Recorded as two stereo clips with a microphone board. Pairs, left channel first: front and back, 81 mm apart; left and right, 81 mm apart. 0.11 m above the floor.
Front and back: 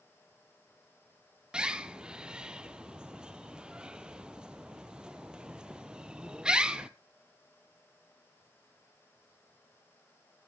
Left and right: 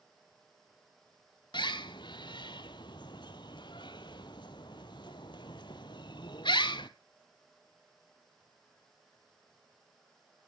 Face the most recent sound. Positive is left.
turn(degrees=100)